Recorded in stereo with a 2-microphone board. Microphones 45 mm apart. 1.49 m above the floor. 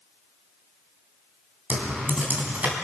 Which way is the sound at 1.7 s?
40° right (ahead or behind).